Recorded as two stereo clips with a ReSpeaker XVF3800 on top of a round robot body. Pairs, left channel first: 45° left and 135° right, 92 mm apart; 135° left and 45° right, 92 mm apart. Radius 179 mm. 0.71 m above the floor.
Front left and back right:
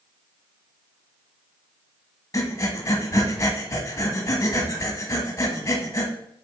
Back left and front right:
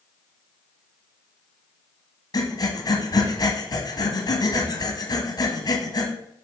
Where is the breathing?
100° left, 1.4 m.